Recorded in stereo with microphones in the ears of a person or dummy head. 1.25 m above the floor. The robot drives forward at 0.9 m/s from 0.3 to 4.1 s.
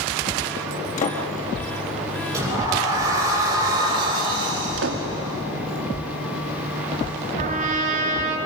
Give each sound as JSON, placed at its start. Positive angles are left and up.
{"t": 1.0, "sound": "a door slam", "side_deg": 40, "distance_m": 1.9}
{"t": 2.3, "sound": "a sliding door", "side_deg": -20, "distance_m": 6.5}
{"t": 4.8, "sound": "a door slam", "side_deg": -75, "distance_m": 1.8}
{"t": 7.4, "sound": "a trumpet", "side_deg": -45, "distance_m": 3.5}